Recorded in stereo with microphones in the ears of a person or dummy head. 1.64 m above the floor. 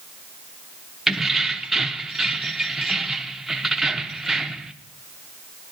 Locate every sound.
1.1 s keys jangling: 5° right (ahead or behind), 0.6 m